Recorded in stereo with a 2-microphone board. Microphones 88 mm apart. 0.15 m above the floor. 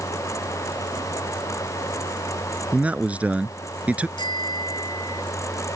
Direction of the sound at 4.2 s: 55° left (ahead or behind).